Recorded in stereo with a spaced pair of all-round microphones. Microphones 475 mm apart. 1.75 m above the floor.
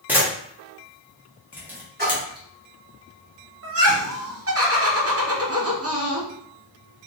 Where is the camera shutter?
5° right (ahead or behind), 0.8 m.